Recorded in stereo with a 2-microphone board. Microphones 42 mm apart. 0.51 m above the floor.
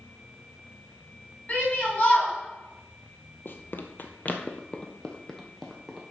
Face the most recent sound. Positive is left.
turn(degrees=5)  # may be behind; listen again after turning